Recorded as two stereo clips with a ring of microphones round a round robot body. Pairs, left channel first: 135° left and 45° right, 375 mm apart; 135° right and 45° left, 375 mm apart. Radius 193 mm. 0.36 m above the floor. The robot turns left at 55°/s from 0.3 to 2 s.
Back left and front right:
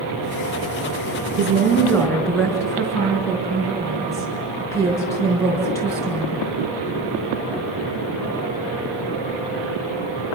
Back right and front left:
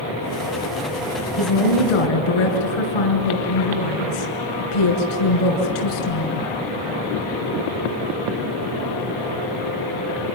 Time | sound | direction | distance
1.4 | a woman speaking | 110° right | 5 m